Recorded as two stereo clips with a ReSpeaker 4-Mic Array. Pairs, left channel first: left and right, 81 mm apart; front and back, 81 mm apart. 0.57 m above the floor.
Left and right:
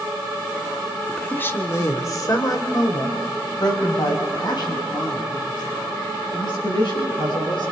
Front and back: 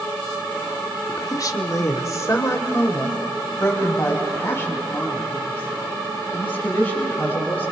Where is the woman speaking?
15° left, 1.2 m; by 7.7 s 65° left, 8 m.